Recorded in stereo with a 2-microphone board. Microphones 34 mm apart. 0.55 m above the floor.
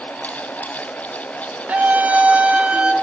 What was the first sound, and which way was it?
A scream, 55° right (ahead or behind).